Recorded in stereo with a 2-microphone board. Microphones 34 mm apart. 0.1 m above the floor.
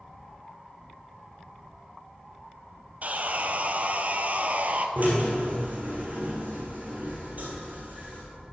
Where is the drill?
50° right (ahead or behind), 3 m.